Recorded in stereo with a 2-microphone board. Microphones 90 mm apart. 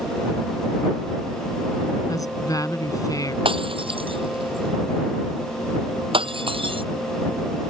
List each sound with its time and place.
2.1 s a woman speaking: 40° left (ahead or behind)
3.5 s breaking glass: 90° right